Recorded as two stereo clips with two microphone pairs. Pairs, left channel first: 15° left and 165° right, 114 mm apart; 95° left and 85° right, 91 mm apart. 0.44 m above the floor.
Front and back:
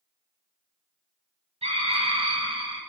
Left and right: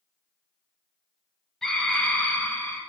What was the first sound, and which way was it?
A scream, straight behind.